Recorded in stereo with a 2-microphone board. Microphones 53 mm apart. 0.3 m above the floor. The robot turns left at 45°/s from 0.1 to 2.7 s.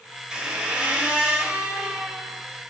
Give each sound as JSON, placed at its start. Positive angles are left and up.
{"t": 0.3, "sound": "a squeak", "side_deg": -15, "distance_m": 0.7}